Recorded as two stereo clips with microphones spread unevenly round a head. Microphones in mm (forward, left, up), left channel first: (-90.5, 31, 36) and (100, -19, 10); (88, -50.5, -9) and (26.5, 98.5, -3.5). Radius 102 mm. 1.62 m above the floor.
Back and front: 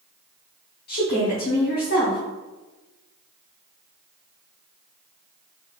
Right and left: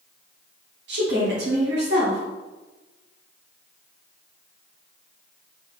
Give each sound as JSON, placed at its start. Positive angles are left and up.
{"t": 0.9, "sound": "a woman speaking", "azimuth_deg": 125, "distance_m": 1.2}